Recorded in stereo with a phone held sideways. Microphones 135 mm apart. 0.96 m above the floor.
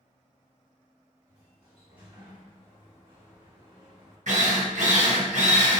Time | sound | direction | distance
1.3 | a sliding door | 40° right (ahead or behind) | 1.3 m
4.3 | a drill | 65° right (ahead or behind) | 0.6 m